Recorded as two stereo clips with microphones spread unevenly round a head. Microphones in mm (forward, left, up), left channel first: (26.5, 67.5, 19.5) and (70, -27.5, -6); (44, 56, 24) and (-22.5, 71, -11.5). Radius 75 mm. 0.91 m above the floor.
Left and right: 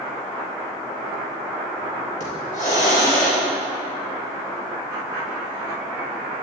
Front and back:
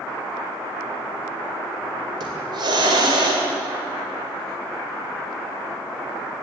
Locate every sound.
2.2 s a hiss: 155° left, 2.5 m